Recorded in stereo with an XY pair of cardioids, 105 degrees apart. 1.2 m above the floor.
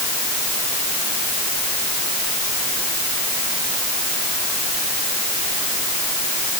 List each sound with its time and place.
Only background noise.